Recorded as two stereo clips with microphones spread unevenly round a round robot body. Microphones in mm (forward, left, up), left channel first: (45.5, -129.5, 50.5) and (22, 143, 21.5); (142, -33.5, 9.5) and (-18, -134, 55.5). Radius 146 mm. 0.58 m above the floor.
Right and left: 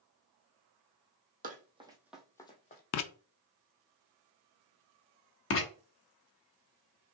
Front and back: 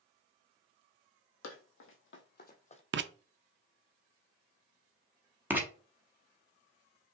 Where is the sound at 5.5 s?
55° right, 1.3 m.